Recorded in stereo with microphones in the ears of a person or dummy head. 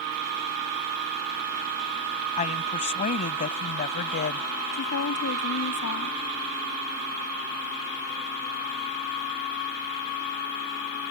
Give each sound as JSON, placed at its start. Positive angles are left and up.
{"t": 2.4, "sound": "a woman speaking", "side_deg": 35}
{"t": 4.7, "sound": "a woman speaking", "side_deg": 85}